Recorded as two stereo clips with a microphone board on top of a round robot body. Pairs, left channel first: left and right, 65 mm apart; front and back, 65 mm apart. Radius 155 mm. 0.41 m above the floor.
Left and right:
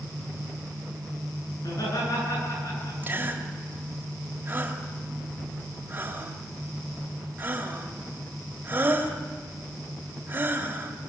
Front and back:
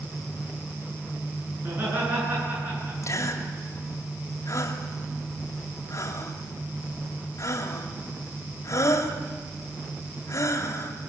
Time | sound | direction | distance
1.6 | laughter | 120° left | 8.5 m
3.0 | a gasp | 30° right | 2.5 m